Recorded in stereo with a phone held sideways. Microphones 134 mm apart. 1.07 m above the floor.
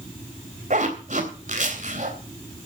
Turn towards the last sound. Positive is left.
turn(degrees=-70)  # may be behind; listen again after turning